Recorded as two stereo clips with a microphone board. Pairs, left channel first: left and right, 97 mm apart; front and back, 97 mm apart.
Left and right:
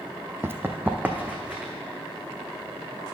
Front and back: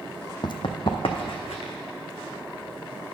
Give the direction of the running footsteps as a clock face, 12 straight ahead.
1 o'clock.